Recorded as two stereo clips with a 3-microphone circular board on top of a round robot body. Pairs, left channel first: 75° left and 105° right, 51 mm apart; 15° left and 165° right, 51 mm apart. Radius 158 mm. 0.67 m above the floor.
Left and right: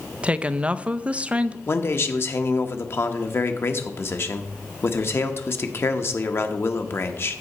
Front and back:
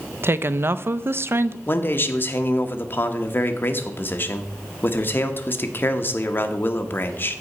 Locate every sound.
0.2 s a woman speaking: 160° right, 0.6 m
1.7 s a man speaking: 55° left, 1.2 m